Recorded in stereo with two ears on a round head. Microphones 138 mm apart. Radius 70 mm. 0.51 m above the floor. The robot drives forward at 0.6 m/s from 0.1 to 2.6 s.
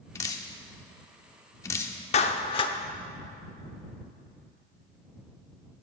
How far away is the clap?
About 0.7 m.